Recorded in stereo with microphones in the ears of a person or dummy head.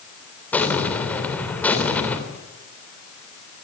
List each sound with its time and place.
0.5 s an explosion: 10° left (ahead or behind), 3 m